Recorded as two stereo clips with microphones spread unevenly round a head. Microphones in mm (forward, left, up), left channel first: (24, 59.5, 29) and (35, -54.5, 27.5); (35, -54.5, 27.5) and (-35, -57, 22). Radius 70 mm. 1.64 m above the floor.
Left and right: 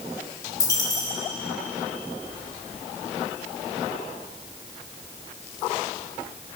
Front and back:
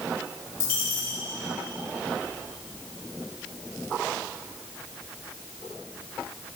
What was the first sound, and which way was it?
A dropped coin, 40° left.